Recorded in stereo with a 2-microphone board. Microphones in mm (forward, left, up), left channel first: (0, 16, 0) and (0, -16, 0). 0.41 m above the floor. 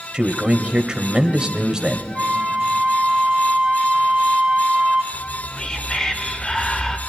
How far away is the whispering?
About 1.0 m.